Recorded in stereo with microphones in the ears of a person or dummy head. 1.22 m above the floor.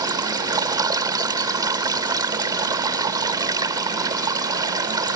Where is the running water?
20° right (ahead or behind).